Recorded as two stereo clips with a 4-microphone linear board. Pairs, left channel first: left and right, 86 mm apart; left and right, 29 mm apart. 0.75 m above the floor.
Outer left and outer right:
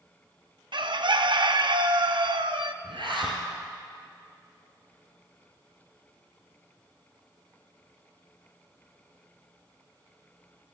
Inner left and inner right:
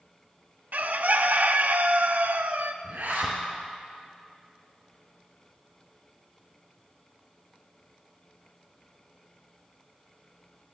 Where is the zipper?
70° right (ahead or behind), 3 m.